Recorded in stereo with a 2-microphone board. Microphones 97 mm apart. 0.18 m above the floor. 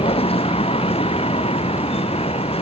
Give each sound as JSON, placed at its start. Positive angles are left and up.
{"t": 0.0, "sound": "a vehicle", "side_deg": 75}